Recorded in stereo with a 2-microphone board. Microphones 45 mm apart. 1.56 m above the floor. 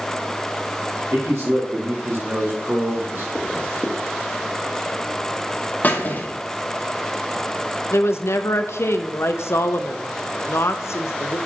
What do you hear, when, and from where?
1.1 s a man speaking: 85° right, 2 m; by 3.2 s 55° right (ahead or behind), 1.6 m
3.4 s a zipper: 25° left (ahead or behind), 1.1 m
5.8 s a squeak: 40° left (ahead or behind), 1.1 m
7.9 s a woman speaking: 75° left (ahead or behind), 0.5 m